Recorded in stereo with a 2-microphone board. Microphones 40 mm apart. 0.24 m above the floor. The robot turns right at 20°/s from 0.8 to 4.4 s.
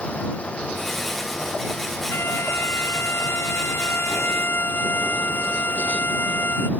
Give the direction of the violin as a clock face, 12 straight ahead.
10 o'clock.